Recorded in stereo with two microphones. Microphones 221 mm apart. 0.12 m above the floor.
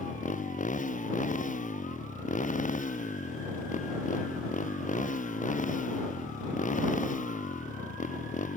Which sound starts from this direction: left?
A motorcycle, at 0.0 s.